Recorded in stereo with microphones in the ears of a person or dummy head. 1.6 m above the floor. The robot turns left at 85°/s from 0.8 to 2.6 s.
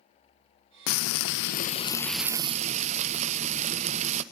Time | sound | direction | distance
0.9 | frying | 110° left | 0.7 m